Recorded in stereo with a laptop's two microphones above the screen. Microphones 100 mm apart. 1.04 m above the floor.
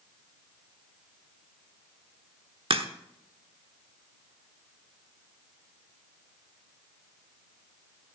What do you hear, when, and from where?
2.7 s a crack: 65° right (ahead or behind), 1.0 m